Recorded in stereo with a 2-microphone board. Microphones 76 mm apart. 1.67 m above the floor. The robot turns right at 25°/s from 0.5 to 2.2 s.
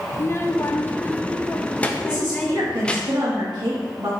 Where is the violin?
No violin in this recording.